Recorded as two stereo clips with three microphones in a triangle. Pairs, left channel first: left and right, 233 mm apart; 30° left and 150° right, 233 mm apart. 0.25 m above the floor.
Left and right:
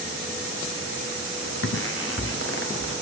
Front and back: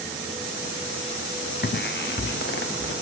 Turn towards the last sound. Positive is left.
turn(degrees=65)